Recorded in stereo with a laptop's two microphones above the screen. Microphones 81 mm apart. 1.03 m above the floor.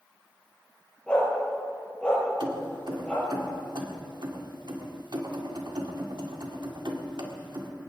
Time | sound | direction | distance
1.1 | a dog barking | 10° left (ahead or behind) | 6 m
2.4 | keys jangling | 70° right (ahead or behind) | 1.7 m